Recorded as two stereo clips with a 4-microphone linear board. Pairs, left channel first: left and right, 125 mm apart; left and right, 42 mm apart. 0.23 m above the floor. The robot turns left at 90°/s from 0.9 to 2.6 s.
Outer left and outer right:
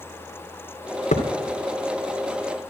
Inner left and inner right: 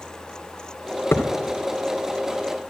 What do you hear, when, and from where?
1.1 s a thud: 65° left (ahead or behind), 2.5 m; by 1.3 s 80° left, 2.5 m